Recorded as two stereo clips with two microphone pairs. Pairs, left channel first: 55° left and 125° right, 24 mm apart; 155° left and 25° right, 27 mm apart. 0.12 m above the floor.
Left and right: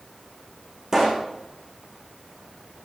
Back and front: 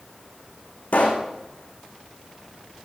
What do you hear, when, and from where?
0.9 s a pop: 175° left, 3 m